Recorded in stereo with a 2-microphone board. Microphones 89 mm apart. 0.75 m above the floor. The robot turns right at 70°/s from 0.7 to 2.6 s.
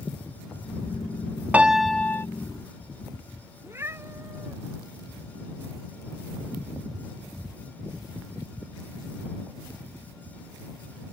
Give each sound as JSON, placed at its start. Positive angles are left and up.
{"t": 1.5, "sound": "a piano", "azimuth_deg": -20}
{"t": 3.6, "sound": "a cat meowing", "side_deg": -30}